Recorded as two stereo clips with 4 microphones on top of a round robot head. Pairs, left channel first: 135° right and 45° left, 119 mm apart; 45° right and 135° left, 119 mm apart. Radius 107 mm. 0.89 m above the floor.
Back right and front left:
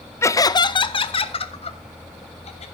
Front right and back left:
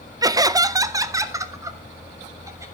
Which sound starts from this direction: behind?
Laughter, at 0.2 s.